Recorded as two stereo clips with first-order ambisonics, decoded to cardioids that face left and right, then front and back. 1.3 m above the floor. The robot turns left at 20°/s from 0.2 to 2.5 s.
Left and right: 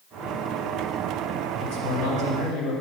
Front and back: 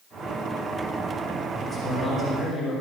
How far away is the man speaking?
About 5 m.